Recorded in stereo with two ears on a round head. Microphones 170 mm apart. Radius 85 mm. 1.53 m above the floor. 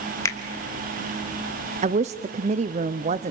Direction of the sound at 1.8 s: 35° right (ahead or behind).